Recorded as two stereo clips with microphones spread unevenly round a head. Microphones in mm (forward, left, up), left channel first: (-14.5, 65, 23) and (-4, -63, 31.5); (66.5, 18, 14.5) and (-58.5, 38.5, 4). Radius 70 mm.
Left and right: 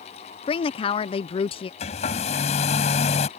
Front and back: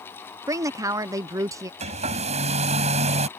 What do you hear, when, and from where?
0.5 s a woman speaking: 115° left
1.8 s a hair dryer: 135° left